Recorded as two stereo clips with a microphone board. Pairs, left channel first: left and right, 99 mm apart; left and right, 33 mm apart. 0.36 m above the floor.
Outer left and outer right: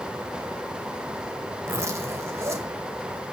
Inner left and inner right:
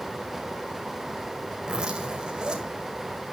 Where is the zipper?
30° right (ahead or behind), 1.9 m.